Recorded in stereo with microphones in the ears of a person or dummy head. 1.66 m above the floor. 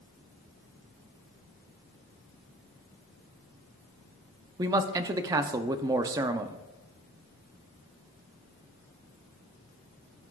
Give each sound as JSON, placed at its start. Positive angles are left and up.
{"t": 4.6, "sound": "a man speaking", "side_deg": -20, "distance_m": 0.5}